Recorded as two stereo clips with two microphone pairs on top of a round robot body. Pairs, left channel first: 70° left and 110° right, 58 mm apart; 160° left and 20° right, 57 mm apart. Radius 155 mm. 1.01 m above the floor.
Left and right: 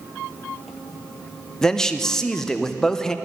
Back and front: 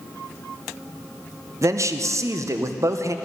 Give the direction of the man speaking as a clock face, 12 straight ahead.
12 o'clock.